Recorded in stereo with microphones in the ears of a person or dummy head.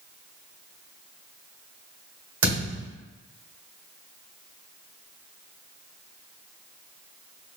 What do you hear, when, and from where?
2.4 s a thud: 65° right (ahead or behind), 1.9 m